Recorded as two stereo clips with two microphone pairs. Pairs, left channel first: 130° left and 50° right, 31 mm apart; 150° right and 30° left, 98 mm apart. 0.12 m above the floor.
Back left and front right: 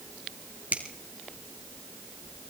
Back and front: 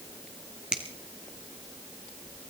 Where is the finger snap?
45° right, 2.5 m.